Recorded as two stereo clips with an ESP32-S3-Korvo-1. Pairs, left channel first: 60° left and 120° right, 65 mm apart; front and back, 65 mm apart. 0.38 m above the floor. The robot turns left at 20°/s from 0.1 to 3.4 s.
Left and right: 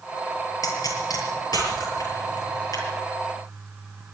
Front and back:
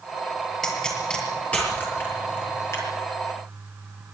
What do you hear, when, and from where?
0.6 s a pop: 85° left, 7 m; by 2.9 s 40° left, 7 m